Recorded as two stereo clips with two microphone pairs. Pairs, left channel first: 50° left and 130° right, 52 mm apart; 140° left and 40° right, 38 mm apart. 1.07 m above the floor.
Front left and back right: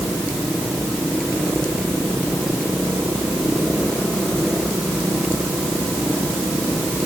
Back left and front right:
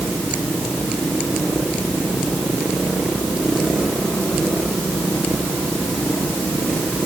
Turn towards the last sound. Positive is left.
No sound to turn to.